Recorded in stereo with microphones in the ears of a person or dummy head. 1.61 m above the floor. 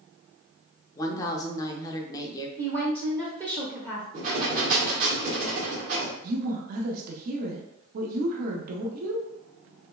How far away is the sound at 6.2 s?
About 0.6 m.